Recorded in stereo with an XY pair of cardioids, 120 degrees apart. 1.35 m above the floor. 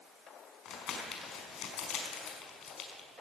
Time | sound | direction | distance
0.7 | crumpling | 70° left | 4 m